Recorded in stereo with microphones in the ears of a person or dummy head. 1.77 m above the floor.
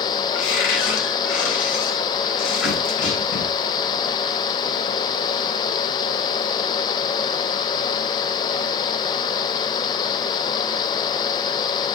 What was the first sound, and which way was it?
A cupboard door, 80° left.